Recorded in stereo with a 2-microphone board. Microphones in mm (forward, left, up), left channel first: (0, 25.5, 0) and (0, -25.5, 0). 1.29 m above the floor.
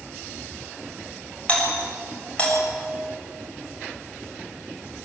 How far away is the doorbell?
About 7 m.